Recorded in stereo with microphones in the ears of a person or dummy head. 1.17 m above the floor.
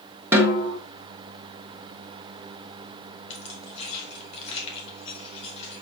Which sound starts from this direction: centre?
A snare drum, at 0.3 s.